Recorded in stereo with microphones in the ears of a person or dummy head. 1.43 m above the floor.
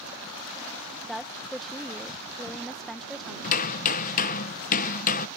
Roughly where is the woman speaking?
Centre.